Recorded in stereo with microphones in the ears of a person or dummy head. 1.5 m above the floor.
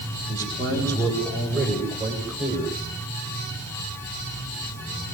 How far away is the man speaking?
About 8.5 m.